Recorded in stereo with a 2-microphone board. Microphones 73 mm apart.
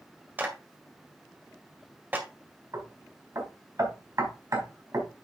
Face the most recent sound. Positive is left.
turn(degrees=-50)  # may be behind; listen again after turning